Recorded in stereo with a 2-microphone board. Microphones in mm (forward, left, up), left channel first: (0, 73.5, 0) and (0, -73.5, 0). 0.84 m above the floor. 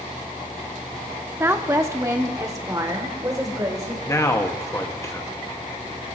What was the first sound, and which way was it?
A woman speaking, 15° right (ahead or behind).